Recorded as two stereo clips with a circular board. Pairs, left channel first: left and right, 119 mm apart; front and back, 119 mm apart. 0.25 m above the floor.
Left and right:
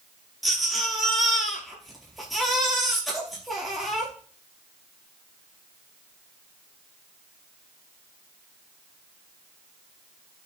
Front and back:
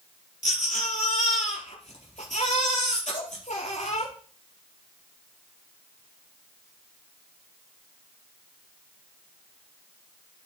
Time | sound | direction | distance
0.4 | a baby crying | straight ahead | 4 m